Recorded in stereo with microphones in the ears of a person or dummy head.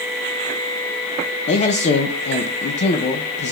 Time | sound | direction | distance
1.5 | a man speaking | 40° left (ahead or behind) | 0.6 m